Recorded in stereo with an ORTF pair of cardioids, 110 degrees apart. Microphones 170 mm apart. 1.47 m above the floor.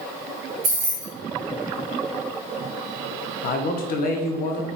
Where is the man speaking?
60° left, 0.8 m.